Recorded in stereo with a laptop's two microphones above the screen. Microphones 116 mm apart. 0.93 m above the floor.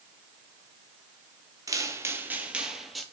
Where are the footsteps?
30° right (ahead or behind), 1.2 m; by 3.0 s centre (ahead or behind), 1.3 m.